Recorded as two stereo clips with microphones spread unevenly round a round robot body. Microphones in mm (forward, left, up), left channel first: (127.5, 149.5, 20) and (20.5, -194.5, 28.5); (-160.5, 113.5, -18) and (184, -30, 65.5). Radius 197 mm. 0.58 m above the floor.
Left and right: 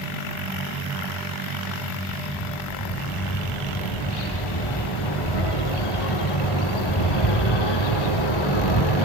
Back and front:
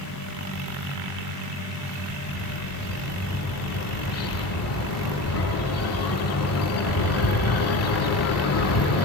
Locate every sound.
2.1 s a bird: 105° left, 8.5 m